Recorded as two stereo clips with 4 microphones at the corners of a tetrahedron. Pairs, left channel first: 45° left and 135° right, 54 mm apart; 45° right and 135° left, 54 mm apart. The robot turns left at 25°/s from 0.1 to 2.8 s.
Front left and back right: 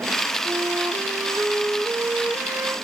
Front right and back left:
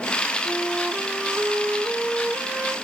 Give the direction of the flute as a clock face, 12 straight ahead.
4 o'clock.